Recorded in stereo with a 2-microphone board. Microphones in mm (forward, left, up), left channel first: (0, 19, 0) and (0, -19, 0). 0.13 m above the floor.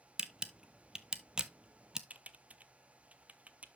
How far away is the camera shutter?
About 0.5 m.